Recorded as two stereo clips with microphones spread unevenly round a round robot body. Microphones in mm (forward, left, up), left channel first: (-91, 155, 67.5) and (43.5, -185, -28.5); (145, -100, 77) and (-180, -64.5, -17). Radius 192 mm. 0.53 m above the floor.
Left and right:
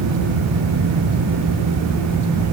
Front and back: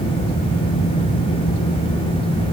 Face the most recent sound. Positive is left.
No sound to turn to.